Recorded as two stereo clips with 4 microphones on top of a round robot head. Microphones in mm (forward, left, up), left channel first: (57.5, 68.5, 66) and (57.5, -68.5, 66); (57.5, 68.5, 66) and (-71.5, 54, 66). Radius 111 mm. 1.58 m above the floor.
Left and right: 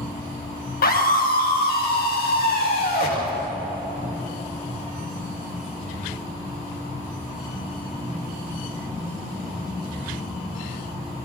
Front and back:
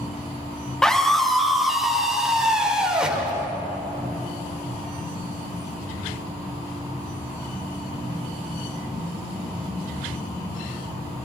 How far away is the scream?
About 4 m.